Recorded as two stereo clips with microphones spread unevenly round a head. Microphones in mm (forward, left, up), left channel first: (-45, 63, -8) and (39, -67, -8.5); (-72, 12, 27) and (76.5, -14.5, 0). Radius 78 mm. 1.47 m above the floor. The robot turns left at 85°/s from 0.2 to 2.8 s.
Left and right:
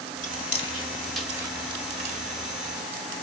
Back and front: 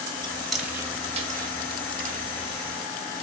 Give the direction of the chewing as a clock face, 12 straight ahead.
8 o'clock.